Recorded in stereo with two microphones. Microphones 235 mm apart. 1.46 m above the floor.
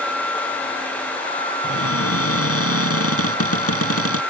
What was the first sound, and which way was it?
A cupboard door, 70° left (ahead or behind).